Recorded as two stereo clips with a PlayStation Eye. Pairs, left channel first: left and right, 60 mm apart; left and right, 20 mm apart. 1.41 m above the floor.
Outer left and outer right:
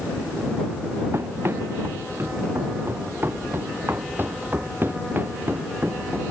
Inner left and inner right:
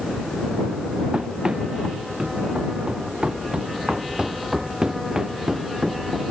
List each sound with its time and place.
1.1 s running footsteps: 45° right (ahead or behind); by 6.2 s 35° right (ahead or behind)